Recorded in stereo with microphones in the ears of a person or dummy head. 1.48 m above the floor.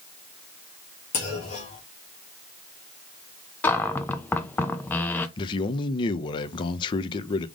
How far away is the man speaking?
About 0.6 m.